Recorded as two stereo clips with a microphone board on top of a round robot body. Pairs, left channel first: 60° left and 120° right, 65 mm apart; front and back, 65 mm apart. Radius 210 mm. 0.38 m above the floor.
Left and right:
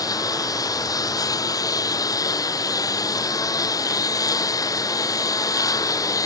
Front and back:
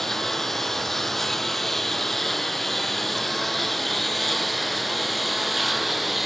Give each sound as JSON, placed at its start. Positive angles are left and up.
{"t": 0.0, "sound": "a lawn mower", "azimuth_deg": 85}